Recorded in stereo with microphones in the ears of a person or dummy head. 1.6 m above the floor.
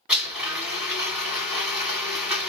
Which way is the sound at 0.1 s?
20° right (ahead or behind).